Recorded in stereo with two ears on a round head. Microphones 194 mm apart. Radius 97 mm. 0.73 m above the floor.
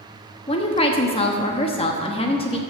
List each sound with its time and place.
0.5 s a woman speaking: 25° left (ahead or behind), 1.0 m